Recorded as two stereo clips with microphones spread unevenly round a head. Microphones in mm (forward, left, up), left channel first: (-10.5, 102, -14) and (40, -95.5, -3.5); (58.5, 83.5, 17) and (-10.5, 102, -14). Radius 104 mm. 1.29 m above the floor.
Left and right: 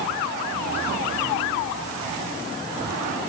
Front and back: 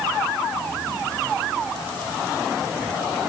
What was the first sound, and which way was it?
Only background noise.